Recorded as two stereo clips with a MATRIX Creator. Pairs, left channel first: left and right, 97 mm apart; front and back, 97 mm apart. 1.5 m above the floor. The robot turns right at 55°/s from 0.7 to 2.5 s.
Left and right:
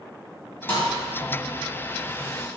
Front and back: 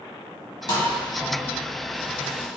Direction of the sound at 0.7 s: 30° left.